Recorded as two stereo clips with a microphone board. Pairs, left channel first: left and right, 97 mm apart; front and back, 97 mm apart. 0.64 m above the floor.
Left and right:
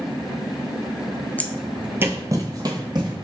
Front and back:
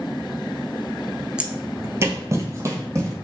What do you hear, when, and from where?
1.4 s footsteps: 115° left, 0.6 m; by 3.1 s 125° right, 1.5 m